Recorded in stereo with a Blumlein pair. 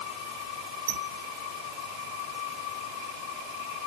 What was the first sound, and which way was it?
A squeak, 50° right.